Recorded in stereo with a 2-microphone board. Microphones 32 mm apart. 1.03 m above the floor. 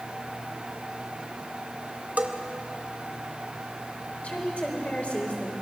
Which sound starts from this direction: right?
A bell, at 2.2 s.